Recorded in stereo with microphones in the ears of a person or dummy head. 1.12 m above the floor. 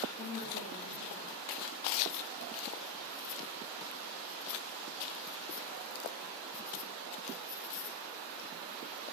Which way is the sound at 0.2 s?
50° left (ahead or behind).